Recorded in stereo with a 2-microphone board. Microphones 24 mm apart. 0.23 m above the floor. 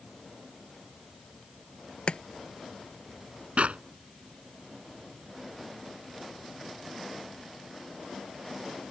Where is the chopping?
50° left (ahead or behind).